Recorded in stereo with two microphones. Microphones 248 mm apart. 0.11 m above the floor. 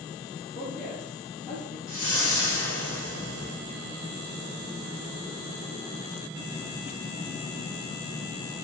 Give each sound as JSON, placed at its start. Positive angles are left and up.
{"t": 0.6, "sound": "a woman speaking", "side_deg": 5, "distance_m": 2.5}
{"t": 1.9, "sound": "a whoosh", "side_deg": 85, "distance_m": 1.8}